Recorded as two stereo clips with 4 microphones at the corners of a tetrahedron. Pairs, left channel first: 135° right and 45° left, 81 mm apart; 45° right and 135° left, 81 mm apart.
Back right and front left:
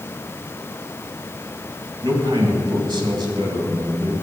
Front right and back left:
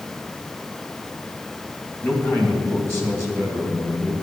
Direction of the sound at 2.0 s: 15° left.